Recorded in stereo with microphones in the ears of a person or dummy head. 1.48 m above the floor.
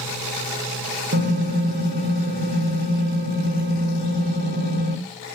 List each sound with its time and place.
1.1 s typing on a keyboard: 50° right (ahead or behind), 1.1 m